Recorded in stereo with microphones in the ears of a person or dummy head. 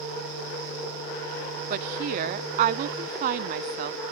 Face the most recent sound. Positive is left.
turn(degrees=-45)  # may be behind; listen again after turning